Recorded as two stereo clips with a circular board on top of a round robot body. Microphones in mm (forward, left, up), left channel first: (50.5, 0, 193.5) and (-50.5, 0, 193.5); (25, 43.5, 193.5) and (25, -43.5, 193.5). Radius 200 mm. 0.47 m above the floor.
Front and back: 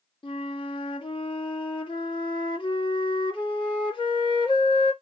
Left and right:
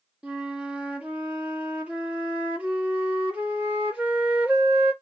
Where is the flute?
20° right, 1.7 m.